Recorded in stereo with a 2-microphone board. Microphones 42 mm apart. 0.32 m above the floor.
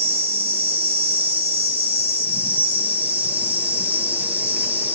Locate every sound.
0.0 s an insect: 45° right (ahead or behind), 0.9 m